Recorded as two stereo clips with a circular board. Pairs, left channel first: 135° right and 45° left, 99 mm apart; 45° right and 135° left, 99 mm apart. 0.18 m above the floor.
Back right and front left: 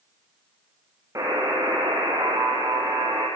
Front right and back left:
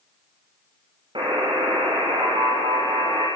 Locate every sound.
1.1 s a buzzer: 100° left, 7.5 m